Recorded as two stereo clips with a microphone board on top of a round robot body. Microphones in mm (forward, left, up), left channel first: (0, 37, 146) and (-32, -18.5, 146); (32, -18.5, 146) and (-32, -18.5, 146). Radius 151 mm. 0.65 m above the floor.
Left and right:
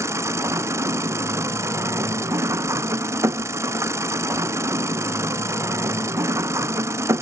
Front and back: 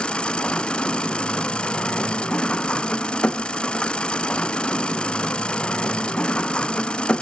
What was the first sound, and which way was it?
An engine running, 75° right.